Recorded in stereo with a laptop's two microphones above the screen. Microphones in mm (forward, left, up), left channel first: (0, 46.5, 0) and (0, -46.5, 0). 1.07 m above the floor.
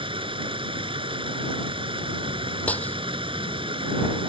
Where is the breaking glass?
15° left (ahead or behind).